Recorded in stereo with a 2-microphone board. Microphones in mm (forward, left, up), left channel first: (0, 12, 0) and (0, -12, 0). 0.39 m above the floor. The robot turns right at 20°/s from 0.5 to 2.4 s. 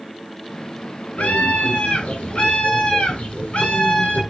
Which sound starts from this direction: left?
A scream, at 1.2 s.